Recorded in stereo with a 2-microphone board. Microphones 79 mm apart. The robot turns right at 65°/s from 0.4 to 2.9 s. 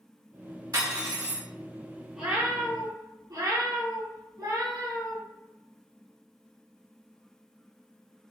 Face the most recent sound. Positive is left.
turn(degrees=-125)